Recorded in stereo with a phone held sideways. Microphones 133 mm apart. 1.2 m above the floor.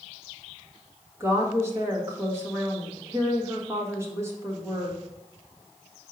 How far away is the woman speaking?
About 1.5 m.